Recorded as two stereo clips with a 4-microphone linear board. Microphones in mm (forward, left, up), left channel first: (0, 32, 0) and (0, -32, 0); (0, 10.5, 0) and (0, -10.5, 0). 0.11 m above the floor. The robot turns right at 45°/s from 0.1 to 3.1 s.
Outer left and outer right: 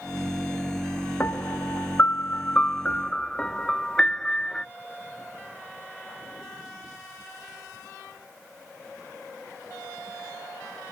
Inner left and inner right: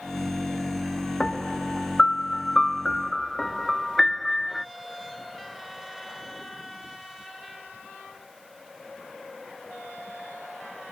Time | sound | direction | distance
1.2 | a piano | 70° left | ?